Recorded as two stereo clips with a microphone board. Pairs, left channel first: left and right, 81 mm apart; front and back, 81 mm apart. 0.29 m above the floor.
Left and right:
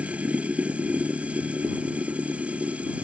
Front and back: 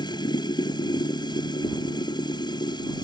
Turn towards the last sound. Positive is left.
turn(degrees=-15)